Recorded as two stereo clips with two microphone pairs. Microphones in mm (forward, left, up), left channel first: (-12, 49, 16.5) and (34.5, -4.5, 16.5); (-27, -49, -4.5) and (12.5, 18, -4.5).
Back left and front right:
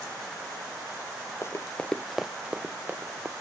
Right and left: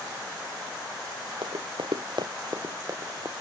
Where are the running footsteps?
75° left; by 3.3 s 10° left.